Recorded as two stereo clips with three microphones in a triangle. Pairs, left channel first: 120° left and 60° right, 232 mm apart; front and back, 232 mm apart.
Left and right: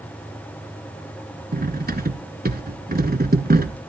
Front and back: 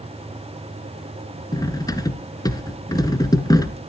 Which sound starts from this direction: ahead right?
Cutlery clinking, at 1.5 s.